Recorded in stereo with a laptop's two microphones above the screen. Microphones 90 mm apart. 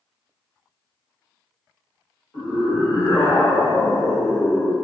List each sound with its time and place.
2.3 s a scream: 35° left (ahead or behind), 1.1 m; by 4.8 s 20° left (ahead or behind), 0.7 m